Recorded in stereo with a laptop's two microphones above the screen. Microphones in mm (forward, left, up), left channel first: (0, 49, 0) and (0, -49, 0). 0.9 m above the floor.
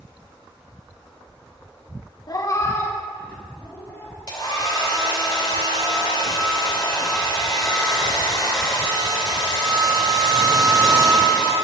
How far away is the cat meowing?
About 0.6 m.